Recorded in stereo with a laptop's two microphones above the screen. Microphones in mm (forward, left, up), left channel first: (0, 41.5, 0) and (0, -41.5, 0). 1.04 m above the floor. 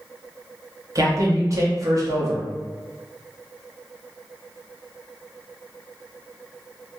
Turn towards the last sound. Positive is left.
turn(degrees=-40)  # may be behind; listen again after turning